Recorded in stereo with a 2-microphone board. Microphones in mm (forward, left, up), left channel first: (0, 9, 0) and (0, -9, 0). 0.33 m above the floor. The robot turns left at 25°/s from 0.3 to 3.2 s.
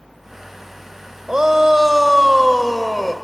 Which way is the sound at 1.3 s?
100° right.